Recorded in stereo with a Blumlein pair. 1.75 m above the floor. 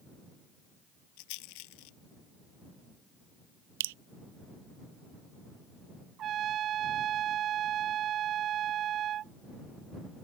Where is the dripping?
55° right.